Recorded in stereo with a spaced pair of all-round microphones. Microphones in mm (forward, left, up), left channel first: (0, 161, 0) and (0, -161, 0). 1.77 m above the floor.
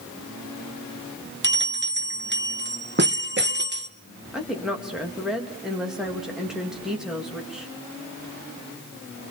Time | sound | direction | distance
1.4 | a bell | 35° right (ahead or behind) | 1.0 m
4.3 | a woman speaking | centre (ahead or behind) | 3 m